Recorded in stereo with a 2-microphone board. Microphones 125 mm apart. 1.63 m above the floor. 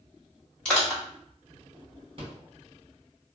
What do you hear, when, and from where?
0.7 s crushing: 5° left (ahead or behind), 1.7 m
2.2 s a rattle: 50° right (ahead or behind), 1.6 m